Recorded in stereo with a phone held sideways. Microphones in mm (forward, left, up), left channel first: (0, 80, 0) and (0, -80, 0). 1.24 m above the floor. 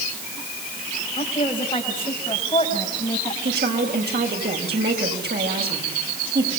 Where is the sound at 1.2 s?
35° left (ahead or behind), 5.5 m; by 3.4 s 30° left (ahead or behind), 8 m.